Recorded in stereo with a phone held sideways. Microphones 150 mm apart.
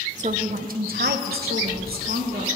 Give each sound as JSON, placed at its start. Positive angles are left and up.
{"t": 0.2, "sound": "a woman speaking", "side_deg": -50, "distance_m": 0.9}